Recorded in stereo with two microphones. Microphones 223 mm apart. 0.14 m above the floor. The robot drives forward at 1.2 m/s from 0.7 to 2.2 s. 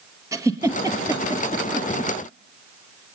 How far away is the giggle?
About 3 m.